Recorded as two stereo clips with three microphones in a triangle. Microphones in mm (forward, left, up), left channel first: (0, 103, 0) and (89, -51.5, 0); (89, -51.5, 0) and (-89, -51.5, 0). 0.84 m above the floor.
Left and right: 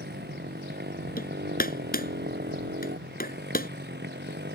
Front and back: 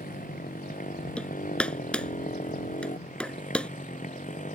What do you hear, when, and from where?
0.0 s a motorcycle: 40° right; by 4.6 s 45° right
1.2 s hammering: 85° left